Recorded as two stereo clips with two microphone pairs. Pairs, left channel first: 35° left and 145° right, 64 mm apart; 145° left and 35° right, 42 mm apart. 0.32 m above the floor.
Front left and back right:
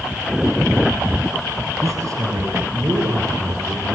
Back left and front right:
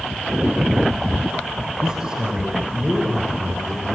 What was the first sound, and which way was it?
A man speaking, 110° right.